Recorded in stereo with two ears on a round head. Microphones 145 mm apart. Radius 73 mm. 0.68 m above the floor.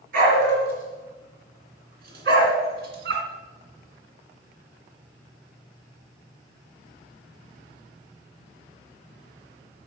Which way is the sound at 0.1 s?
60° right (ahead or behind).